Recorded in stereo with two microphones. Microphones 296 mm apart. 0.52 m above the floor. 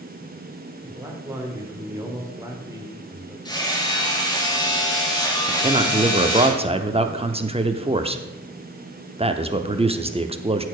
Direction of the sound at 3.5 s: 15° left (ahead or behind).